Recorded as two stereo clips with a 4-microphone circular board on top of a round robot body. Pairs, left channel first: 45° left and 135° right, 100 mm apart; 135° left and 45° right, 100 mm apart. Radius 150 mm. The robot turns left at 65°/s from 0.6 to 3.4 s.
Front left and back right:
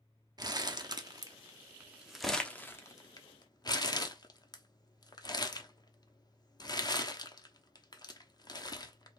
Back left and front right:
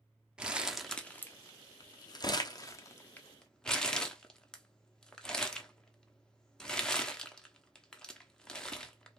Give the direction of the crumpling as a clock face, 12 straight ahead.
4 o'clock.